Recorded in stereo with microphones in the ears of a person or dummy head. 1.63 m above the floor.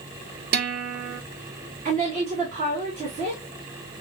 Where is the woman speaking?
30° right (ahead or behind), 1.9 m.